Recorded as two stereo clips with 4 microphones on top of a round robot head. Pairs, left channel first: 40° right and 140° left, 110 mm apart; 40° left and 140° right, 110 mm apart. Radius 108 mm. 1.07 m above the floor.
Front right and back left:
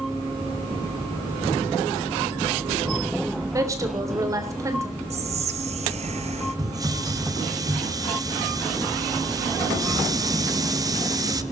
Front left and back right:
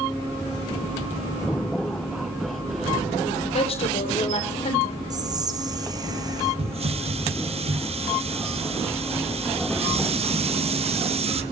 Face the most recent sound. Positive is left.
turn(degrees=-165)